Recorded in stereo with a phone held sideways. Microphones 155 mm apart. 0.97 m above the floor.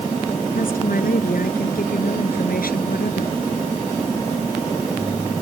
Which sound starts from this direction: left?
A woman speaking, at 0.6 s.